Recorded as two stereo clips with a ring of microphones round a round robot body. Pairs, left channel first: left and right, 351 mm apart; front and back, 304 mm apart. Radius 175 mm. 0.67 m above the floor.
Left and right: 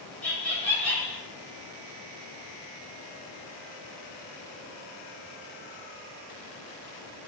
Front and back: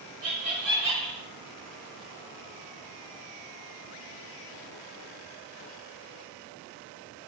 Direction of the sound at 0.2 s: 175° left.